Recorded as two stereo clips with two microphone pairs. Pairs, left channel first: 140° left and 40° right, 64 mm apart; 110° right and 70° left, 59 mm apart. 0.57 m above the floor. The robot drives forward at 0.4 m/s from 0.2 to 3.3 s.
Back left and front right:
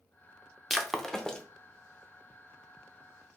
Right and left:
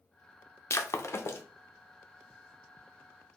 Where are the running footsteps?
I don't hear running footsteps.